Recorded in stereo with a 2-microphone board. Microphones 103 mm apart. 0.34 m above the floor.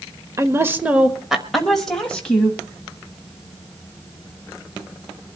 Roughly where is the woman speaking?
Right.